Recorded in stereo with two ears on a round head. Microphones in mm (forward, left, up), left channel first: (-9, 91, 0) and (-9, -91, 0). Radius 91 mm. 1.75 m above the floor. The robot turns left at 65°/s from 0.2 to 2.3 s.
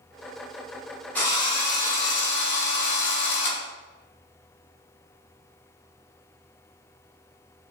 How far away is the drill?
About 0.9 m.